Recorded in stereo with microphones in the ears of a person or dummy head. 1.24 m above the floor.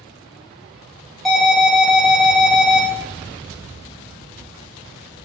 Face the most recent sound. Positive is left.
turn(degrees=0)  # may be behind; listen again after turning